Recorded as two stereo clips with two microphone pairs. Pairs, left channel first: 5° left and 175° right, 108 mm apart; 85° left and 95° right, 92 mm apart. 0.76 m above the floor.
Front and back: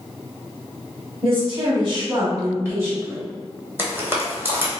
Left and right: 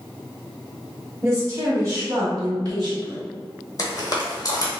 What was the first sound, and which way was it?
A woman speaking, 150° right.